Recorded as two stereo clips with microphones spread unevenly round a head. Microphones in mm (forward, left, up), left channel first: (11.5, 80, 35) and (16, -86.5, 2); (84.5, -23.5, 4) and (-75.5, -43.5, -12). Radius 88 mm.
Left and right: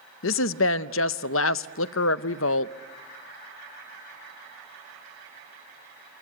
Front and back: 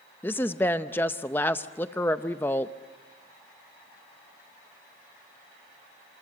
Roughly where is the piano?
No piano in this recording.